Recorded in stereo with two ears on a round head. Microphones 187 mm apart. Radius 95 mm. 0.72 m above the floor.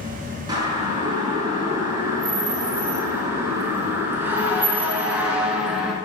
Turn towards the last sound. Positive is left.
turn(degrees=-5)  # may be behind; listen again after turning